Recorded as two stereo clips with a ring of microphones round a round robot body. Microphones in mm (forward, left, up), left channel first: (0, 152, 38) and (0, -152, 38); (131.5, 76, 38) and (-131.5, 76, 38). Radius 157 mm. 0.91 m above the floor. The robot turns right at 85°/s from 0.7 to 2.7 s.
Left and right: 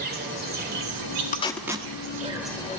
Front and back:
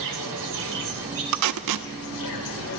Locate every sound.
0.0 s an insect: 150° right, 1.9 m; by 2.8 s 20° left, 1.9 m
1.3 s tape being pulled: 155° left, 0.8 m; by 1.9 s 155° right, 0.8 m